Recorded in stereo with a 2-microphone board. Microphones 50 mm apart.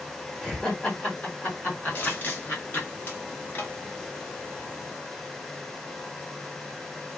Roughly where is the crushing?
Left.